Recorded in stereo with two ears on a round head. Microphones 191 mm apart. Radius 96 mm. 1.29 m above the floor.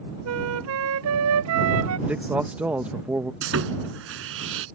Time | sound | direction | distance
0.2 | a flute | 75° right (ahead or behind) | ?
2.1 | a man speaking | 5° right (ahead or behind) | ?
3.4 | sawing | 65° right (ahead or behind) | ?